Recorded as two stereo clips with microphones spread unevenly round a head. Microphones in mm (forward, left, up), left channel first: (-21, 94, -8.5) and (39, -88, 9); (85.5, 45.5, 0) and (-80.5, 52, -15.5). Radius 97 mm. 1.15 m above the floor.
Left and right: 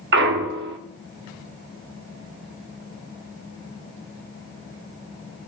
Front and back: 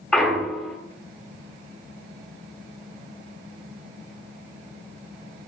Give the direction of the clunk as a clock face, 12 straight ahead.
3 o'clock.